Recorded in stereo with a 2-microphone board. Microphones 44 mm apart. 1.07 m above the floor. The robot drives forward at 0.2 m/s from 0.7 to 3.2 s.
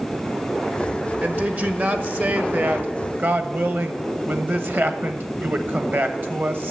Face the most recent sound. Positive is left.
turn(degrees=-50)  # may be behind; listen again after turning